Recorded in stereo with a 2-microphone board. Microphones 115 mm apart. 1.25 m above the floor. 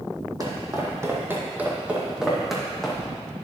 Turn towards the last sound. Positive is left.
turn(degrees=5)  # may be behind; listen again after turning